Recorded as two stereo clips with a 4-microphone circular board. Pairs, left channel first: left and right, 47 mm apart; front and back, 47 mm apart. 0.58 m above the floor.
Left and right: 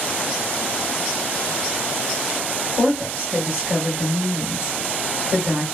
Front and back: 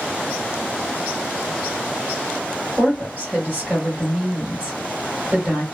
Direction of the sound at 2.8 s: 140° right.